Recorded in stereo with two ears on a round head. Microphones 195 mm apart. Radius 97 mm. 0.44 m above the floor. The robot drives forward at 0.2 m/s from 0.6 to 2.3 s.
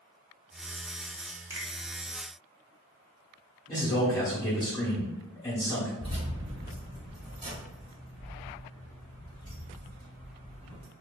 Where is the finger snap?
10° right (ahead or behind), 0.7 m.